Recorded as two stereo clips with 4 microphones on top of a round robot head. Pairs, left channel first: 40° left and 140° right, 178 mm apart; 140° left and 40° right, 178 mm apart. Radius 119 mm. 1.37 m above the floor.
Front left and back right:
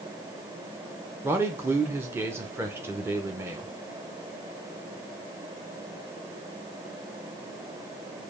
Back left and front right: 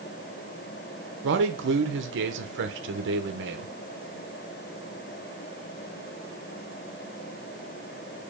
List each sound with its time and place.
1.2 s a man speaking: 65° right, 0.7 m